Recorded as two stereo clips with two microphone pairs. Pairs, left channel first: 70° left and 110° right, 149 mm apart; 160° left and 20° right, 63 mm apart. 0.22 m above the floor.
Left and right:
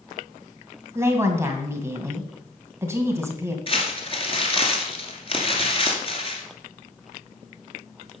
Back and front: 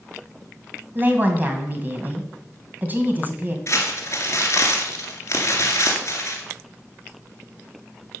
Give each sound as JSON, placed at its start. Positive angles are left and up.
{"t": 0.9, "sound": "a woman speaking", "azimuth_deg": -50, "distance_m": 1.9}
{"t": 3.7, "sound": "crumpling", "azimuth_deg": 120, "distance_m": 2.0}